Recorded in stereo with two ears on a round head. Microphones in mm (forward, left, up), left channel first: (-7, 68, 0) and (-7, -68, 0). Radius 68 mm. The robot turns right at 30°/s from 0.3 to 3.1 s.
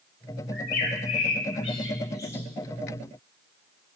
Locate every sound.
0.5 s a bird: 70° left (ahead or behind), 1.5 m; by 2.5 s 15° left (ahead or behind), 1.5 m